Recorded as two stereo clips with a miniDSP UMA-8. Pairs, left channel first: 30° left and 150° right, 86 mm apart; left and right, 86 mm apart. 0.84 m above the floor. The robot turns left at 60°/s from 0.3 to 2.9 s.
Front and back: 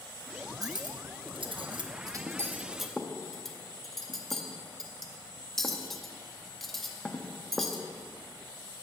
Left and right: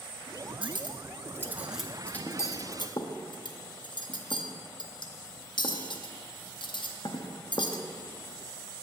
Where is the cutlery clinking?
105° right, 0.6 m; by 7.8 s 120° left, 0.6 m.